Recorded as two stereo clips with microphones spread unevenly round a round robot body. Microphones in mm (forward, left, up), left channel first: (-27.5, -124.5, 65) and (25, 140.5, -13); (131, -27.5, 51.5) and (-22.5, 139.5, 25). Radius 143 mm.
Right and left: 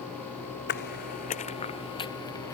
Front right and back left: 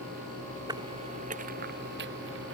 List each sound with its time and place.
0.7 s footsteps: 150° right; by 2.5 s 175° right